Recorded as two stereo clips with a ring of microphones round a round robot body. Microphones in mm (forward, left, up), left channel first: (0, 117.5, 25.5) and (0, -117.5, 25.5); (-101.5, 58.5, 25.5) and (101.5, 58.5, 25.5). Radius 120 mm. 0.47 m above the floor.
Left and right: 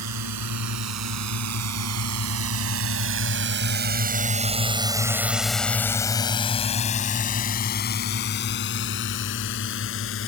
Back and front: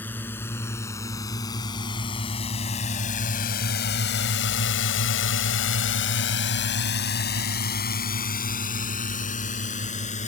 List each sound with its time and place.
0.0 s a drone: 95° right; by 10.3 s 125° left